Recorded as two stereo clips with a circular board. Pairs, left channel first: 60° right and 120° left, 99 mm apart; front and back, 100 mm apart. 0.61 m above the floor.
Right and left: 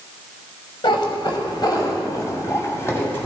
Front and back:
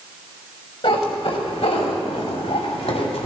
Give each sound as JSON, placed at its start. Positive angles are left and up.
{"t": 0.8, "sound": "a cat meowing", "azimuth_deg": -25, "distance_m": 1.9}